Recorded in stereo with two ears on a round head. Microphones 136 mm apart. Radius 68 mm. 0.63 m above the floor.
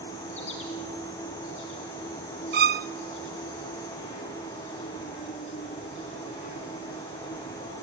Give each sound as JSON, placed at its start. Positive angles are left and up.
{"t": 0.0, "sound": "an insect", "side_deg": 45, "distance_m": 5.5}
{"t": 2.5, "sound": "a violin", "side_deg": -70, "distance_m": 0.5}